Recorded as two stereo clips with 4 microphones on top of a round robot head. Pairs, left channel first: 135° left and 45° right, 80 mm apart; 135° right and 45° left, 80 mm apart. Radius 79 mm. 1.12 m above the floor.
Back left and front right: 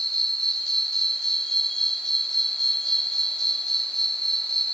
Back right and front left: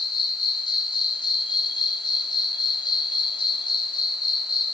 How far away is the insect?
About 1.1 m.